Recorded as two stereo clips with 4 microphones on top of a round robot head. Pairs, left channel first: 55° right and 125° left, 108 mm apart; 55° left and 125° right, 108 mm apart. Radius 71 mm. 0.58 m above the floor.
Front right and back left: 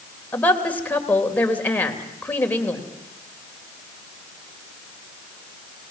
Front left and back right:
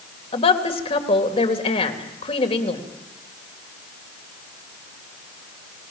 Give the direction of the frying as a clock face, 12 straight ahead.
I don't hear frying.